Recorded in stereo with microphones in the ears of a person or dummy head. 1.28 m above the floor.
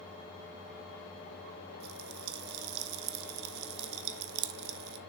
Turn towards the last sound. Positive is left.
turn(degrees=-60)  # may be behind; listen again after turning